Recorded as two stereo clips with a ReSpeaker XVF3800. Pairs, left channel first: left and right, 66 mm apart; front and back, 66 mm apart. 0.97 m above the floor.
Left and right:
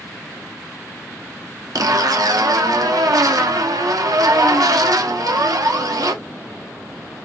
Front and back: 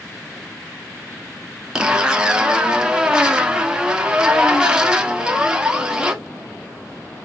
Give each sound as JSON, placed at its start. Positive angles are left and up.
{"t": 1.8, "sound": "a zipper", "azimuth_deg": -100, "distance_m": 0.6}